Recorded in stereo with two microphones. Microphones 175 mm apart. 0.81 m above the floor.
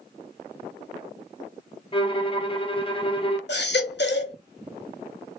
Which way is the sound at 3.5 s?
75° left (ahead or behind).